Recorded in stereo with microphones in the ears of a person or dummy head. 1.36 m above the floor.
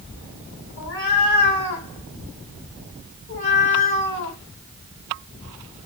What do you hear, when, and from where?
0.8 s a cat meowing: 50° left (ahead or behind), 1.7 m